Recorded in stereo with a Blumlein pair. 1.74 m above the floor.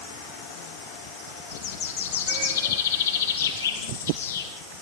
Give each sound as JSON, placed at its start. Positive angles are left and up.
{"t": 1.5, "sound": "a bird", "azimuth_deg": 65, "distance_m": 6.5}